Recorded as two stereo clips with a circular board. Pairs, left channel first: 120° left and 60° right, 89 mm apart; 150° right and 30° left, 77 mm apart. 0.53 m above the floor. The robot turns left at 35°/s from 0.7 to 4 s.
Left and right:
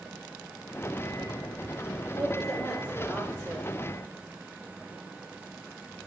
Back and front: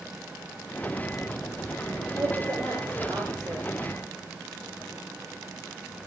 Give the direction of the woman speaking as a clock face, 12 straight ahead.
10 o'clock.